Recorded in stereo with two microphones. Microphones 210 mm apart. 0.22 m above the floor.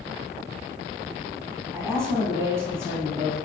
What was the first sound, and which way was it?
A woman speaking, 10° right (ahead or behind).